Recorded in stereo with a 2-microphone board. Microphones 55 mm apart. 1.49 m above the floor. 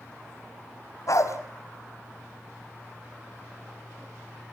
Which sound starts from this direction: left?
A dog barking, at 1.1 s.